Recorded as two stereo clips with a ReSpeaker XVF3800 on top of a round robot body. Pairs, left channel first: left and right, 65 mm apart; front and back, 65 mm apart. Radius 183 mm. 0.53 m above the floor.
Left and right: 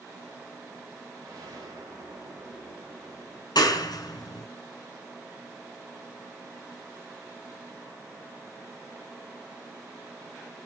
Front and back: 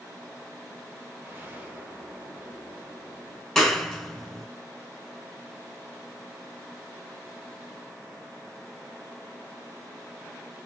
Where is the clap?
90° left, 1.6 m.